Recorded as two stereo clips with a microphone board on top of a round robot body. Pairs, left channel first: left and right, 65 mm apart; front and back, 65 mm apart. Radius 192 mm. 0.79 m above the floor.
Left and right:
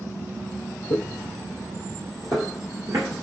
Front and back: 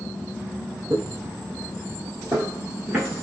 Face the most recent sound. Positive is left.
turn(degrees=-110)